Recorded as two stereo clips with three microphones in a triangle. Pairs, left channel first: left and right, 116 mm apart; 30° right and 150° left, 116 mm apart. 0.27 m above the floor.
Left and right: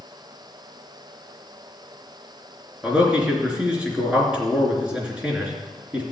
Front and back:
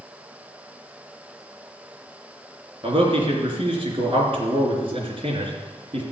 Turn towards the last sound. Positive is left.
turn(degrees=-170)